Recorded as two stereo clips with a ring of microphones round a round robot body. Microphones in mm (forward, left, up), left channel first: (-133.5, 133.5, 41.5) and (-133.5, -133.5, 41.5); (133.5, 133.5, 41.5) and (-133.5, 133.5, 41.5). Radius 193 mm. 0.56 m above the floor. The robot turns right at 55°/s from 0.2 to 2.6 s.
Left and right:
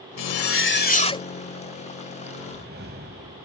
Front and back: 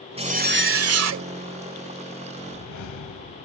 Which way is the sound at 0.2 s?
110° left.